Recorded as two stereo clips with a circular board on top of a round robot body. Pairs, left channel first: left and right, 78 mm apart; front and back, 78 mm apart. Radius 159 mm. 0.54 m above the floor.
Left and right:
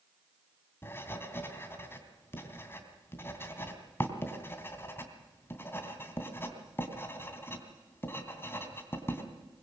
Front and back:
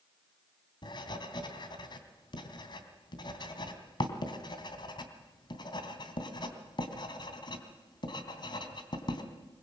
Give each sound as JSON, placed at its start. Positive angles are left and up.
{"t": 0.8, "sound": "writing", "azimuth_deg": 25, "distance_m": 3.0}